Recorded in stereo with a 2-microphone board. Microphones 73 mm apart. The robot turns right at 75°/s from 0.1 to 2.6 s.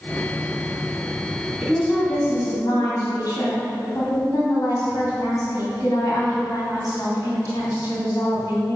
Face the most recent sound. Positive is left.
turn(degrees=60)